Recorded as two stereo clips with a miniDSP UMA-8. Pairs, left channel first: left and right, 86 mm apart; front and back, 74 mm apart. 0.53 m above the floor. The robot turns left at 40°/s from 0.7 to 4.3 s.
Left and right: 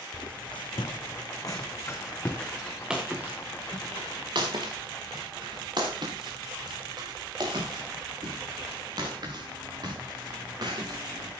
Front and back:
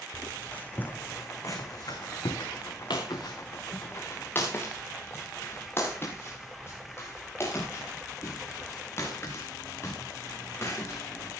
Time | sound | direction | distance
0.1 | footsteps | 65° left | 1.8 m